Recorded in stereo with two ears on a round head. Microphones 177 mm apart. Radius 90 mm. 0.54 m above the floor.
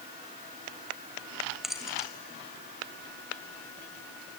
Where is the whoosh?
No whoosh in this recording.